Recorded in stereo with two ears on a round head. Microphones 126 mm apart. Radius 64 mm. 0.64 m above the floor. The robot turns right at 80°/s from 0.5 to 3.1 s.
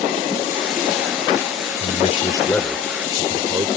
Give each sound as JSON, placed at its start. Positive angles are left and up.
{"t": 1.8, "sound": "a man speaking", "azimuth_deg": 105}